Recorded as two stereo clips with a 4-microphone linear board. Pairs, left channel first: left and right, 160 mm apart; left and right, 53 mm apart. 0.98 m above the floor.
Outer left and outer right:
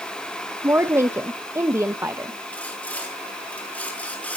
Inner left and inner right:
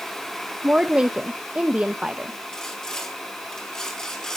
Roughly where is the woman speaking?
Centre.